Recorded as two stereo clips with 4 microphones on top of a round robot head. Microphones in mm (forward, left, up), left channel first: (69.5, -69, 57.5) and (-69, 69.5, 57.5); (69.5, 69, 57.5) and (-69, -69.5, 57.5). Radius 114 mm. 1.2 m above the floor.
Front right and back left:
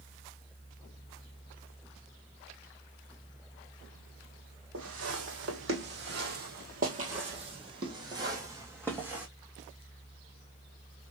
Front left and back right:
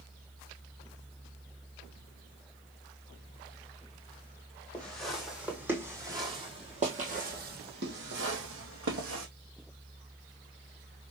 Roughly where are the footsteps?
Behind left.